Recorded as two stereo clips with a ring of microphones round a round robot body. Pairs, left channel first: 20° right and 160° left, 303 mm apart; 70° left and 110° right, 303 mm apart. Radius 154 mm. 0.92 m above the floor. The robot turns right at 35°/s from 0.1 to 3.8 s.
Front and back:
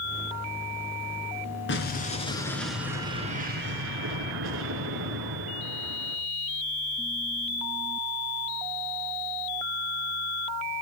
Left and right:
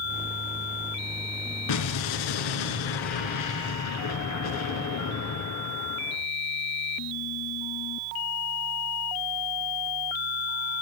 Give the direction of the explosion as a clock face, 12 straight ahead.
11 o'clock.